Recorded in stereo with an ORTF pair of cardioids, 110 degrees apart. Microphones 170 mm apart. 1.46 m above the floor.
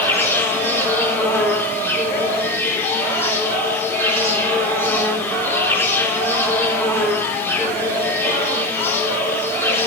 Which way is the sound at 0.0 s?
15° left.